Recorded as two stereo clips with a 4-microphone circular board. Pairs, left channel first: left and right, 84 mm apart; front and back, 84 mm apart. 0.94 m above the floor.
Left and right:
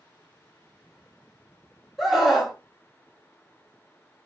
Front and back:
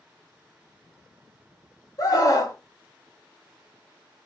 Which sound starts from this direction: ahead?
A scream, at 2.0 s.